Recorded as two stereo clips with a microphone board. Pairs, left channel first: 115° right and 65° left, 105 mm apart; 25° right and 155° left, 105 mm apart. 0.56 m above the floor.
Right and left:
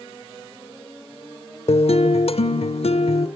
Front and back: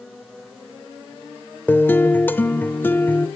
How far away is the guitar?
About 0.9 m.